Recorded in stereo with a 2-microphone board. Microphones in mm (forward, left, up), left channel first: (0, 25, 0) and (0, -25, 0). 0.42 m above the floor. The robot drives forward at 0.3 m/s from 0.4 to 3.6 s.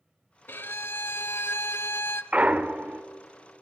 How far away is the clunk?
About 0.6 m.